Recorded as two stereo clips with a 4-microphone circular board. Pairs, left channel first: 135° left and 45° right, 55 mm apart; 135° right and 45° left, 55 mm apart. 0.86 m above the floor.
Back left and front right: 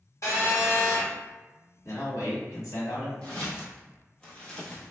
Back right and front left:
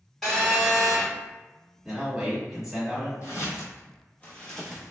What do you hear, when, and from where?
0.2 s a phone buzzing: 140° left, 1.1 m
1.9 s a man speaking: 130° left, 1.5 m
3.2 s footsteps: 160° right, 1.5 m; by 4.9 s 95° left, 0.8 m